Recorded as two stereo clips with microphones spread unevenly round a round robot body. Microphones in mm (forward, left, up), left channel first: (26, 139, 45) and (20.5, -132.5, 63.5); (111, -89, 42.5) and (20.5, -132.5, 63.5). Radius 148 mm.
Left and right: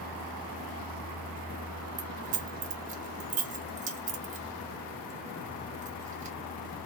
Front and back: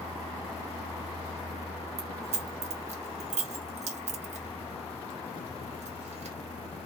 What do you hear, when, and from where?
2.0 s keys jangling: 155° right, 0.5 m